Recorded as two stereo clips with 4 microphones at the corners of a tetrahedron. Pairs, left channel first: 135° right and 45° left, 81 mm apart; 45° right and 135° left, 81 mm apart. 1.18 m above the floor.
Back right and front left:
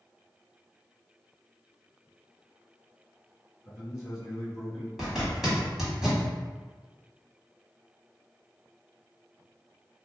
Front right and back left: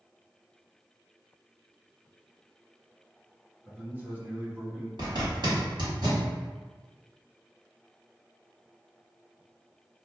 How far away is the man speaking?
About 0.8 m.